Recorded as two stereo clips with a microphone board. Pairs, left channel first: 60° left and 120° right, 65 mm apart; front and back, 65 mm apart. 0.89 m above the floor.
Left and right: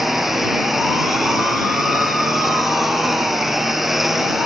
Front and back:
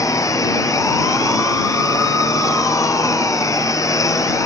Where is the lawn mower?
35° right.